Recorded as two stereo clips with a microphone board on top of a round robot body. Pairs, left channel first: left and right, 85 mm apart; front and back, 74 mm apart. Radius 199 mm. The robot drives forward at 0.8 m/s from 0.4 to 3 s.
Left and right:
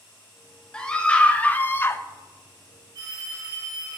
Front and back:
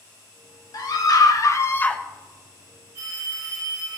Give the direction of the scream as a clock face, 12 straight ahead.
12 o'clock.